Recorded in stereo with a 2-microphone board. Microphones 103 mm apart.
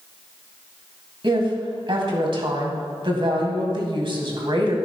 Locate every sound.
1.2 s a woman speaking: 55° right (ahead or behind), 2 m